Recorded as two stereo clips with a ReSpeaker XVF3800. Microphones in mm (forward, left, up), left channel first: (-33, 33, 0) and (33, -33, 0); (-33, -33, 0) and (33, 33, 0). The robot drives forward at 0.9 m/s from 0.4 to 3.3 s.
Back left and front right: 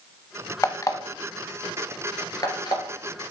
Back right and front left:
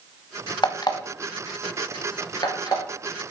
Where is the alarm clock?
170° right, 0.6 m; by 2.8 s straight behind, 2.5 m.